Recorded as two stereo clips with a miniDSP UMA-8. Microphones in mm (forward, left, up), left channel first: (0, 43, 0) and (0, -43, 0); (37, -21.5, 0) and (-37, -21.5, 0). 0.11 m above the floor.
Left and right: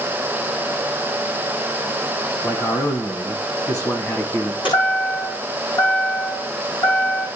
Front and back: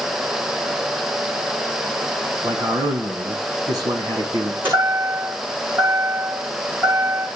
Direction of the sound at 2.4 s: 140° left.